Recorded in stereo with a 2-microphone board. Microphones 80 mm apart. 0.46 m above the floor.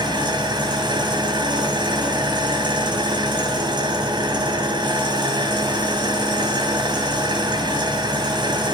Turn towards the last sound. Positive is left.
turn(degrees=-70)  # may be behind; listen again after turning